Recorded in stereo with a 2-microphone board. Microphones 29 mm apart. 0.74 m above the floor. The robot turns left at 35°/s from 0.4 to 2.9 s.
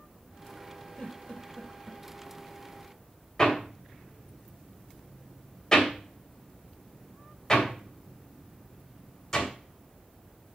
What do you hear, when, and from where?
1.0 s a giggle: 50° left (ahead or behind), 5 m; by 2.0 s 15° left (ahead or behind), 5 m
3.4 s hammering: 25° left (ahead or behind), 3 m